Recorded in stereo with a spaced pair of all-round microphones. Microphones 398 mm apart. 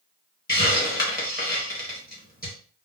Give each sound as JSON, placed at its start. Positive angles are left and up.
{"t": 0.5, "sound": "a hiss", "side_deg": 20, "distance_m": 1.3}